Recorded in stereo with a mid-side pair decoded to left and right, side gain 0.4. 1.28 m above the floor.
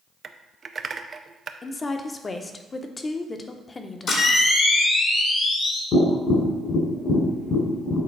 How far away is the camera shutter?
About 1.8 m.